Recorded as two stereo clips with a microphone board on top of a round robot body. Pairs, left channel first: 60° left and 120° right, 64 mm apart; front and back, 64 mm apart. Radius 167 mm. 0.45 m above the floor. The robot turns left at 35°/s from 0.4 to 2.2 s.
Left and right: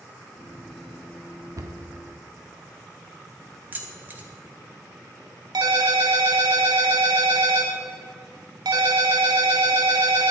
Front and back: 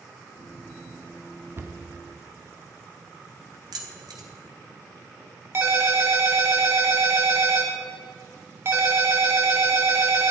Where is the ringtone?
130° right, 1.6 m.